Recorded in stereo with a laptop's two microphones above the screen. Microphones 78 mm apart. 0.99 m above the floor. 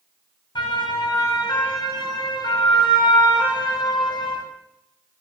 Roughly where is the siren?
Left.